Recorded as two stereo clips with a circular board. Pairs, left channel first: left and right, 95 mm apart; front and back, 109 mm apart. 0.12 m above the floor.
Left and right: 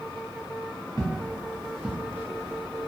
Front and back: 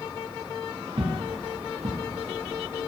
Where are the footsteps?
145° left, 0.8 m; by 2.9 s 135° right, 1.0 m.